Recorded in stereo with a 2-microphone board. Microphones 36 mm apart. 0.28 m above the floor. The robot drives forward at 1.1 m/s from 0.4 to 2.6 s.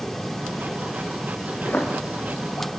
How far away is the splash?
About 7.5 m.